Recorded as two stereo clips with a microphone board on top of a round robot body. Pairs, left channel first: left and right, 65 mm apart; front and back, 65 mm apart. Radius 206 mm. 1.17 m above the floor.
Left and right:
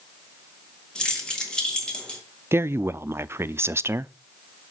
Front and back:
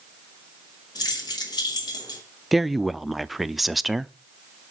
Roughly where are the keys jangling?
Ahead.